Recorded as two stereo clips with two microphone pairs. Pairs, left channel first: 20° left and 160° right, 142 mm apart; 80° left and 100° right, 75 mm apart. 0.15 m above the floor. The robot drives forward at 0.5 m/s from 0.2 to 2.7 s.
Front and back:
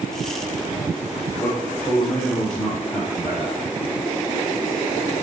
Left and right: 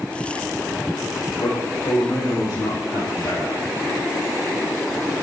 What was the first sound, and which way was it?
A man speaking, 95° left.